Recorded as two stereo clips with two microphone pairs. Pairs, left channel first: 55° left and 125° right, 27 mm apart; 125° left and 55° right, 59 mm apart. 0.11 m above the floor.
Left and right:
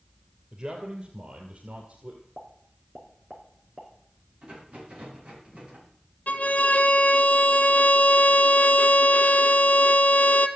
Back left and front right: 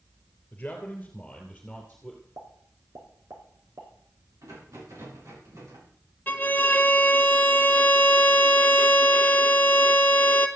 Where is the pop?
65° right, 4 m.